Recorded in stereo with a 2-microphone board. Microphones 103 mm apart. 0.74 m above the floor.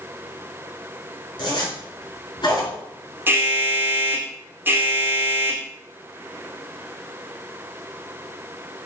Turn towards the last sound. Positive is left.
turn(degrees=-20)  # may be behind; listen again after turning